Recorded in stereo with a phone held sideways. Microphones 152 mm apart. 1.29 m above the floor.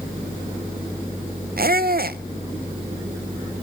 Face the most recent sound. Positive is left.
turn(degrees=-75)  # may be behind; listen again after turning